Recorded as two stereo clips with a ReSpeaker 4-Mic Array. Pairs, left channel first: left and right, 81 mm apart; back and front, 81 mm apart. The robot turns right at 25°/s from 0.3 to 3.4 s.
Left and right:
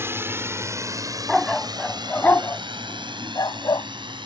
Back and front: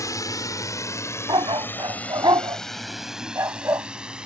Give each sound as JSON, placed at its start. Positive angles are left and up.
{"t": 0.0, "sound": "a drone", "azimuth_deg": -145}
{"t": 1.3, "sound": "a dog barking", "azimuth_deg": 0}